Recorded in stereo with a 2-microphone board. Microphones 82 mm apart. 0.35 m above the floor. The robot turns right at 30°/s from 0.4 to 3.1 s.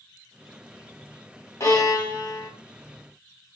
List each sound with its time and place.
1.6 s a violin: 40° left (ahead or behind), 1.3 m; by 2.5 s 60° left (ahead or behind), 1.3 m